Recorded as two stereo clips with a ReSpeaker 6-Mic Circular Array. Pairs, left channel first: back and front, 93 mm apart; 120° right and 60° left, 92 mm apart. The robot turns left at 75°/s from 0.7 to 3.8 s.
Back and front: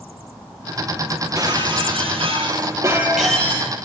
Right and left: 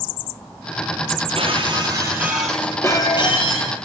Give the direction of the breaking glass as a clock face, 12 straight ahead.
10 o'clock.